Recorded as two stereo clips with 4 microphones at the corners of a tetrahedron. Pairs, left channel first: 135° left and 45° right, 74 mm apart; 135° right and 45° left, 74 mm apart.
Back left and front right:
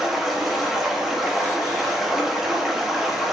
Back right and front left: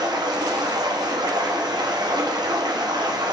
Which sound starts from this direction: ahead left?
Running water, at 0.0 s.